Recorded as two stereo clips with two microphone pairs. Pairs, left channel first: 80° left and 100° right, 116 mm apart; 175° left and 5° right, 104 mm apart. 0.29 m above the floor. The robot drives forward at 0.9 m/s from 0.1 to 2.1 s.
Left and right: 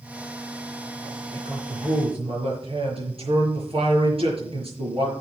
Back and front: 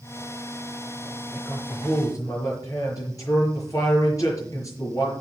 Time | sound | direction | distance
1.3 | a man speaking | 120° right | 5.5 m